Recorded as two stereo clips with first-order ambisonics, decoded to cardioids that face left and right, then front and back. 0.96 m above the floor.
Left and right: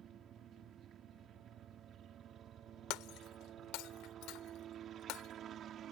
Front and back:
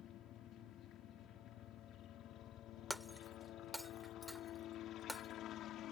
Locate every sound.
0.0 s a helicopter: 40° right
2.9 s breaking glass: 90° left